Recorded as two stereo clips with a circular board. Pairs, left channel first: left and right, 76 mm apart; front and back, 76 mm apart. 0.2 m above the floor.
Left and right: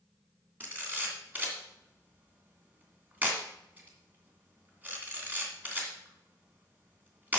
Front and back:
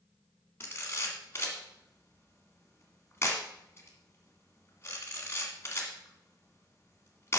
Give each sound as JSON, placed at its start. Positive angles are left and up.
{"t": 0.6, "sound": "a camera shutter", "azimuth_deg": -35, "distance_m": 2.0}